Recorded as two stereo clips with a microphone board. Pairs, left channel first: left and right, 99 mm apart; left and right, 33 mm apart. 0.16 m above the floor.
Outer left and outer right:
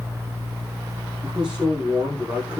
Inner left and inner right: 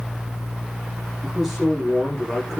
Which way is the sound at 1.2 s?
10° right (ahead or behind).